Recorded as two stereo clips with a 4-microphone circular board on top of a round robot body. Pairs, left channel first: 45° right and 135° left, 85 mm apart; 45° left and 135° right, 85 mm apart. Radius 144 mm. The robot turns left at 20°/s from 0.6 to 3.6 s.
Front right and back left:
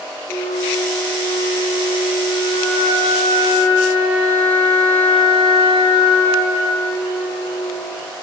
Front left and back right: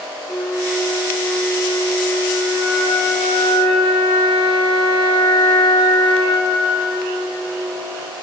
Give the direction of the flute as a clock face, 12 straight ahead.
2 o'clock.